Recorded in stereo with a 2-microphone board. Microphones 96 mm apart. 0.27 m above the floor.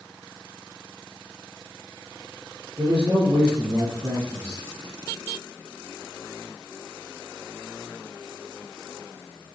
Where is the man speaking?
55° right (ahead or behind), 4 m.